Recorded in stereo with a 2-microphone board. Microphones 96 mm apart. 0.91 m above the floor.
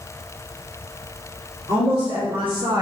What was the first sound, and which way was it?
A woman speaking, 70° right (ahead or behind).